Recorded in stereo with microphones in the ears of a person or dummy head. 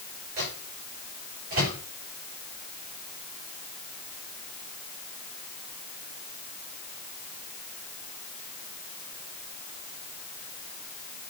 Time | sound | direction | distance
0.4 | a microwave | 55° right (ahead or behind) | 8 m